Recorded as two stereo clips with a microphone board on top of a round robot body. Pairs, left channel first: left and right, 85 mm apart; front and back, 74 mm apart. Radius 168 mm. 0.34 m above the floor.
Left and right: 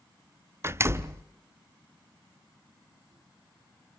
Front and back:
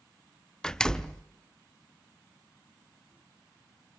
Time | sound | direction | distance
0.6 | a door slam | 75° right | 0.9 m